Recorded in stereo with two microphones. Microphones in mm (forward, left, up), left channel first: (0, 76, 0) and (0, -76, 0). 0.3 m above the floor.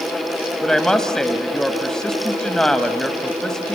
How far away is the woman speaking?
About 1.4 m.